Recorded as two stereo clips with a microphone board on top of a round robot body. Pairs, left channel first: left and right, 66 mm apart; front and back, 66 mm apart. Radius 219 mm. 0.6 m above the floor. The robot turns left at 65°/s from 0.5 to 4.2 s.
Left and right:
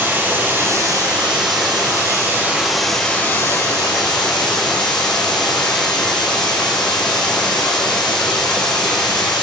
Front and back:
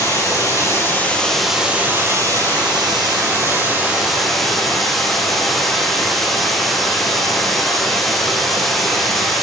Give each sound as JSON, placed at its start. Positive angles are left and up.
{"t": 0.0, "sound": "running water", "azimuth_deg": -30, "distance_m": 5.5}